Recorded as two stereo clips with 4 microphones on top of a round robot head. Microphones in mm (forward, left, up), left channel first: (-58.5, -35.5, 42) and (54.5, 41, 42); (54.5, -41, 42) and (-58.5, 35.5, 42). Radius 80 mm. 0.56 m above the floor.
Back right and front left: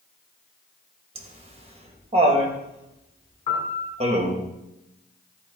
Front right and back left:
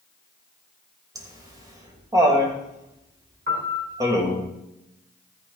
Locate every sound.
1.1 s laughter: 80° left, 3 m
3.5 s a piano: 165° left, 3 m